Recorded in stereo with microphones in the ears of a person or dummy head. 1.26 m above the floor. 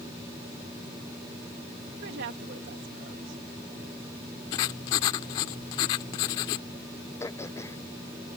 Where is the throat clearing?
20° left (ahead or behind).